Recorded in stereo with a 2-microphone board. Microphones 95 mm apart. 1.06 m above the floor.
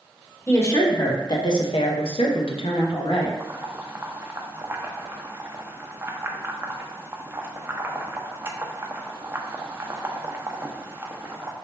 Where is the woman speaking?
25° left (ahead or behind), 1.1 m; by 3.3 s 55° left (ahead or behind), 1.1 m.